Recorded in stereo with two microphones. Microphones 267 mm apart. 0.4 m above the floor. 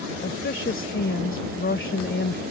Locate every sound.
0.2 s a woman speaking: 45° left (ahead or behind)